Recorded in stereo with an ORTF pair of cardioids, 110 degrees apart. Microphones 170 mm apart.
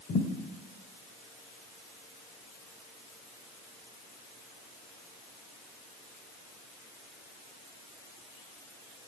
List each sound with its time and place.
0.1 s a thud: 45° left, 2.5 m